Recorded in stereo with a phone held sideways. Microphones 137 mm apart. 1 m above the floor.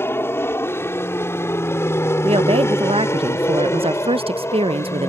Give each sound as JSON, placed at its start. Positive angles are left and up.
{"t": 0.0, "sound": "an aircraft", "side_deg": 15}
{"t": 2.2, "sound": "a woman speaking", "side_deg": -45}